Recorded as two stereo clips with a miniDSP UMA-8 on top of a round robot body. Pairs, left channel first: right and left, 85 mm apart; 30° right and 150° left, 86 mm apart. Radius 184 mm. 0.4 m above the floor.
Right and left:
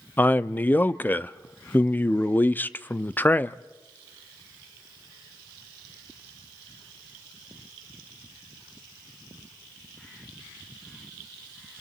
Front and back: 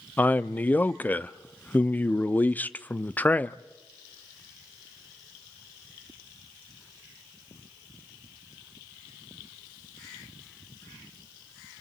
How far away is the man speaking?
About 0.8 m.